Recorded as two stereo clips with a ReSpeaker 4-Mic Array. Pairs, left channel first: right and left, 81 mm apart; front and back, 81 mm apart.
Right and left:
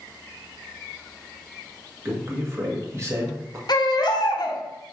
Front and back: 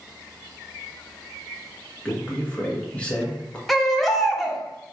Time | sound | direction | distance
2.0 | a man speaking | 65° left | 1.1 m
3.7 | a baby crying | 90° right | 0.7 m